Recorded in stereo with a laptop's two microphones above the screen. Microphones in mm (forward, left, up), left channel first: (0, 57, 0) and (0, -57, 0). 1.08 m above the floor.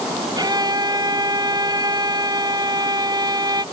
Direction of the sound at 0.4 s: 35° right (ahead or behind).